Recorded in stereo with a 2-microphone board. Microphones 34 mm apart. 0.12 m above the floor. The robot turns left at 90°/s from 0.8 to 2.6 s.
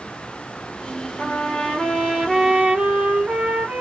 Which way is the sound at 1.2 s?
90° left.